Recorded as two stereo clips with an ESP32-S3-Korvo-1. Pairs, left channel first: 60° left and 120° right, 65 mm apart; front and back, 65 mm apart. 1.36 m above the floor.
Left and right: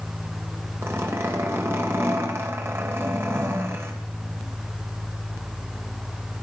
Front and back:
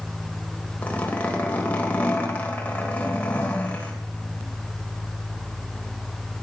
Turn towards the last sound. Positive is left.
turn(degrees=-70)